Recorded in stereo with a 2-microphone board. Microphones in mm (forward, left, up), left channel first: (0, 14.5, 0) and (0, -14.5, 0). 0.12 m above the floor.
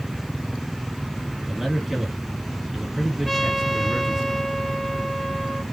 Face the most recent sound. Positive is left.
turn(degrees=10)  # may be behind; listen again after turning